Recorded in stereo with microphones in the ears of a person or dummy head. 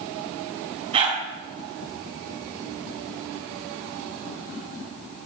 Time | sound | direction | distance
0.9 | a dog barking | 35° right (ahead or behind) | 3.5 m